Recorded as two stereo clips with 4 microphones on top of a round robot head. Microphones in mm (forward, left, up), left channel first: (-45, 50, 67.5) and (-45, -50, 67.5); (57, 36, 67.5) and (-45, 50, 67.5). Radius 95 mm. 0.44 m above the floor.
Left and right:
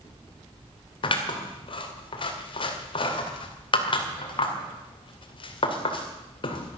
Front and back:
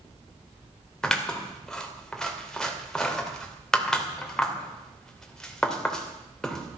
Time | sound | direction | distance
1.0 | scissors | 75° left | 2.5 m